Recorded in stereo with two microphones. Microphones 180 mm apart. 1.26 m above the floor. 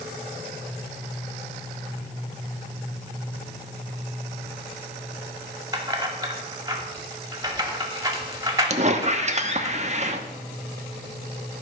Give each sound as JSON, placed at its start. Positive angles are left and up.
{"t": 5.7, "sound": "keys jangling", "side_deg": -20, "distance_m": 2.0}
{"t": 8.7, "sound": "a squeak", "side_deg": -40, "distance_m": 1.0}